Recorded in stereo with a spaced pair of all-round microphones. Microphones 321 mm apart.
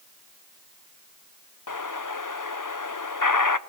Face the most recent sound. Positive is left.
turn(degrees=70)  # may be behind; listen again after turning